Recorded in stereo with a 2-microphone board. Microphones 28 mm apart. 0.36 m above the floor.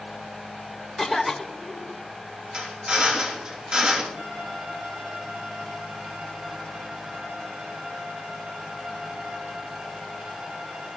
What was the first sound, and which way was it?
A cough, centre (ahead or behind).